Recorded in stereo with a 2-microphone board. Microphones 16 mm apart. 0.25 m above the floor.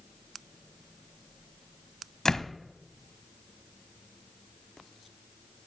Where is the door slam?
35° left (ahead or behind), 1.1 m.